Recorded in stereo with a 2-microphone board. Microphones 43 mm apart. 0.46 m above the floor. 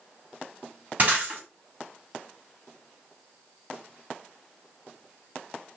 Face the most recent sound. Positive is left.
turn(degrees=-40)  # may be behind; listen again after turning